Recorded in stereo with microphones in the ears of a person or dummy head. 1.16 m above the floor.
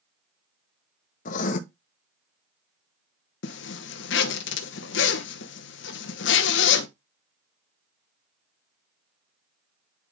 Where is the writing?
40° left (ahead or behind), 0.9 m.